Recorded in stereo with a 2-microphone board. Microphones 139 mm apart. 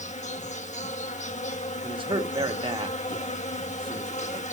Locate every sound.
0.0 s an insect: 60° left (ahead or behind), 0.9 m
1.8 s a man speaking: 40° right (ahead or behind), 1.5 m